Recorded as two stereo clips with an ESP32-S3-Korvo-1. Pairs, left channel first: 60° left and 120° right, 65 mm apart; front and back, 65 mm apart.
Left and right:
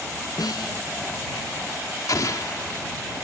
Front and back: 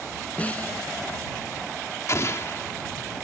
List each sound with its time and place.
0.4 s a snare drum: 65° left
2.1 s an explosion: 40° left